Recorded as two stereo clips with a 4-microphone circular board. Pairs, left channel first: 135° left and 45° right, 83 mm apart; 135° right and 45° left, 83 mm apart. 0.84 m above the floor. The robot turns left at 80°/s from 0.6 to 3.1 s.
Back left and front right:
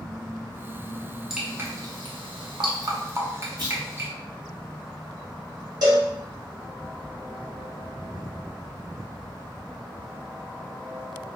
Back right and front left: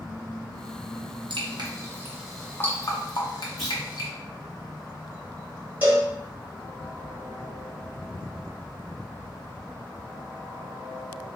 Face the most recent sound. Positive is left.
turn(degrees=-20)